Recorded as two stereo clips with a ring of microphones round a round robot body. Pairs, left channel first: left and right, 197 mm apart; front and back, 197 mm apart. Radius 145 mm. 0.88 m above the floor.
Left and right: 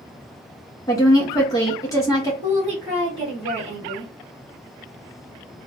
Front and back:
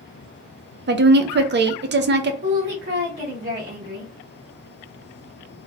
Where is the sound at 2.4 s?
150° right, 1.4 m.